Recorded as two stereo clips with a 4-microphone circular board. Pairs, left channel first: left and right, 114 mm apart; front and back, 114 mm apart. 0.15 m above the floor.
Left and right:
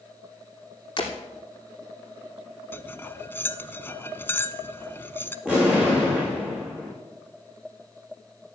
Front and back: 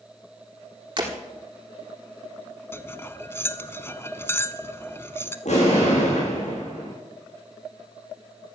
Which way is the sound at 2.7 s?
40° left.